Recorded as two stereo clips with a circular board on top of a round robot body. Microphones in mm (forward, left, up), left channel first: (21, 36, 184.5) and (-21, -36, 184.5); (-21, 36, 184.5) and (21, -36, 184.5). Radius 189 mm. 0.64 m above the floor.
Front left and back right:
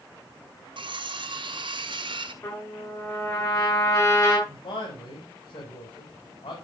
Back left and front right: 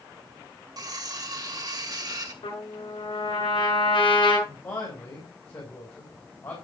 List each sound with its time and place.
0.8 s cutlery clinking: 100° right, 2.5 m
2.4 s a trumpet: 110° left, 8 m
4.5 s a man speaking: 65° left, 4.5 m